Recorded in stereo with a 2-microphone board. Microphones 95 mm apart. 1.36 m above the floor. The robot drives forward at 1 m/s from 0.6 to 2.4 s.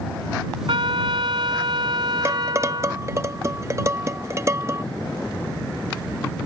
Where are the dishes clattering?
30° right (ahead or behind); by 4.8 s 35° right (ahead or behind).